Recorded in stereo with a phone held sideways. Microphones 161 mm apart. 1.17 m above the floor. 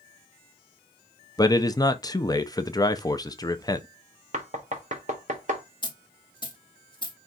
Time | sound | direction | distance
1.4 | a man speaking | 25° left (ahead or behind) | 0.5 m
4.3 | knocking | 50° right (ahead or behind) | 1.1 m
5.8 | a dropped coin | 30° left (ahead or behind) | 0.9 m